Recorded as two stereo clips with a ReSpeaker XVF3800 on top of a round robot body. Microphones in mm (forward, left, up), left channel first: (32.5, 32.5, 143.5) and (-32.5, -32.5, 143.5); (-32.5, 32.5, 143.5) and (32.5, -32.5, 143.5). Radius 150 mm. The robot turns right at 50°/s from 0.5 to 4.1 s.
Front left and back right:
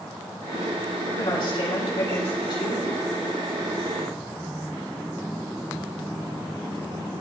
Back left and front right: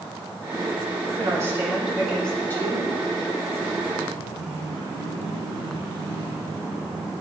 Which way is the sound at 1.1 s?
Straight ahead.